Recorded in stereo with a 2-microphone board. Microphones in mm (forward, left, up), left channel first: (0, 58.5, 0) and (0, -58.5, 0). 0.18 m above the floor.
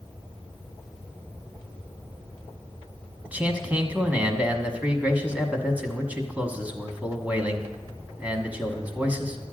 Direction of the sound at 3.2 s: 15° right (ahead or behind).